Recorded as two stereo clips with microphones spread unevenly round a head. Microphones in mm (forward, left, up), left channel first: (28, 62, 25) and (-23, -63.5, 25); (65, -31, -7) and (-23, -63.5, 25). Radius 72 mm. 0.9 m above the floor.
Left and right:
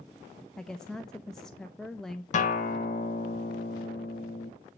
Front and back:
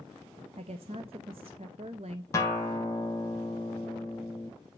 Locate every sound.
0.6 s a woman speaking: 155° left, 0.6 m
2.3 s a guitar: 65° left, 1.3 m